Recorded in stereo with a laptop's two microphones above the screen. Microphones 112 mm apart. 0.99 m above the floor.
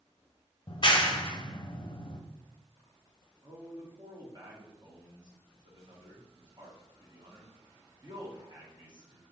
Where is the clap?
45° left (ahead or behind), 0.6 m.